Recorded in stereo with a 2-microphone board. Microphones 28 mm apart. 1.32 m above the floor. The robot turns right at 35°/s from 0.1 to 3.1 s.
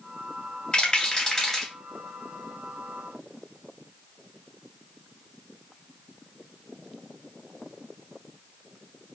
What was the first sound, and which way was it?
A rattle, 35° left (ahead or behind).